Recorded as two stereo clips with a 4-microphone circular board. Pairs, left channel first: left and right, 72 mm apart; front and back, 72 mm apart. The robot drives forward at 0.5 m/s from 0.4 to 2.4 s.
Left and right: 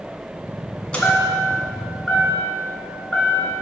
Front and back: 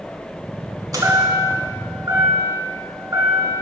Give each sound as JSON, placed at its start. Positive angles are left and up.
{"t": 0.9, "sound": "a chime", "azimuth_deg": 160, "distance_m": 1.4}